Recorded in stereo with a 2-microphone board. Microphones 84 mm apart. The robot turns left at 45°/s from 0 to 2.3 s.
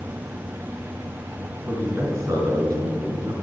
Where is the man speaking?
20° right (ahead or behind), 4 m; by 3.3 s 45° right (ahead or behind), 4 m.